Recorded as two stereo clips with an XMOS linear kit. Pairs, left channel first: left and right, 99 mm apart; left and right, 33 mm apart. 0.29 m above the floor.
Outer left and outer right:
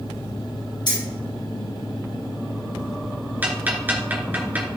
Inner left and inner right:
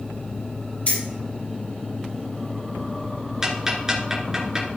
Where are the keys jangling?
50° left (ahead or behind), 5 m.